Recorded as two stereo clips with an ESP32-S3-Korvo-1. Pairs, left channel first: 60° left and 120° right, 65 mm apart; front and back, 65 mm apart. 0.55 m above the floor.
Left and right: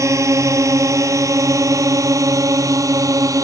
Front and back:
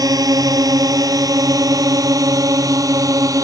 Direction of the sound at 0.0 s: 160° right.